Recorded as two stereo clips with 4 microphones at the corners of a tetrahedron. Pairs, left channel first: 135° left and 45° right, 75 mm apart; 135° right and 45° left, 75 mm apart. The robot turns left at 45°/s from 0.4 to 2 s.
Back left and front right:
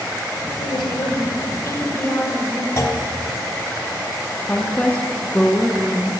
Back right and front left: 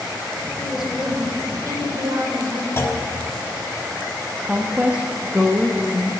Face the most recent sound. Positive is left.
turn(degrees=100)